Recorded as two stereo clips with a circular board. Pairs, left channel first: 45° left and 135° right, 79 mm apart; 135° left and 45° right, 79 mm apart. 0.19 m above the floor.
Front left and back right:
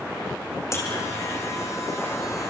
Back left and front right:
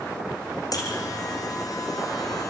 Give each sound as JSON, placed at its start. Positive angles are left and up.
{"t": 0.7, "sound": "a buzzer", "azimuth_deg": 95, "distance_m": 4.5}